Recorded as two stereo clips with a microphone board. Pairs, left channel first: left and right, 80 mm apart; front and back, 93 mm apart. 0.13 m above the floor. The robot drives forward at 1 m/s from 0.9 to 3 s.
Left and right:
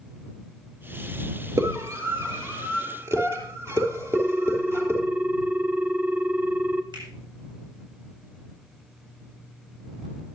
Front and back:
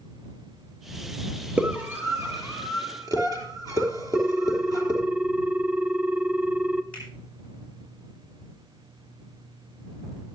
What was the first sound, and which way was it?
A scream, 110° right.